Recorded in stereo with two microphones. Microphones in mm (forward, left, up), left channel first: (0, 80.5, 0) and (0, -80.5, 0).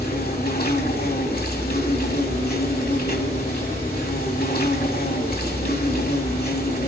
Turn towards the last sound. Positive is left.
turn(degrees=75)  # may be behind; listen again after turning